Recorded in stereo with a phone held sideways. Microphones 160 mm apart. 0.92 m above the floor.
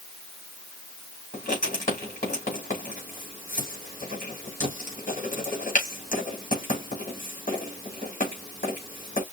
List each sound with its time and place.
1.3 s writing: 55° left (ahead or behind), 3.5 m